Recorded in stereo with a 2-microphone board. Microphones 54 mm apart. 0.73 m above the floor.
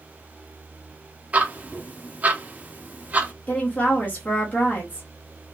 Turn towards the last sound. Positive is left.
turn(degrees=30)  # may be behind; listen again after turning